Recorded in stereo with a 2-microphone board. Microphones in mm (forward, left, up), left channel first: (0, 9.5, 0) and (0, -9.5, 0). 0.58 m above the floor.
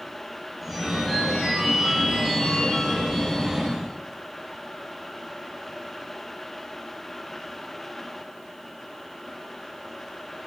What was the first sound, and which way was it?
A phone ringing, 15° right (ahead or behind).